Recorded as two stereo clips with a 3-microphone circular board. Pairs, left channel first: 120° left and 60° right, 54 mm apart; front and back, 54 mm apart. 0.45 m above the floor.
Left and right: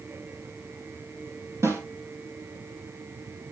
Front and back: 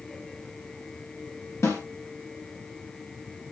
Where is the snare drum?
35° right, 4 m.